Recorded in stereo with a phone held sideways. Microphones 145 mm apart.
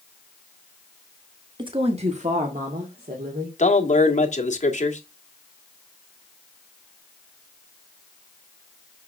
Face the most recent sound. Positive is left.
turn(degrees=55)  # may be behind; listen again after turning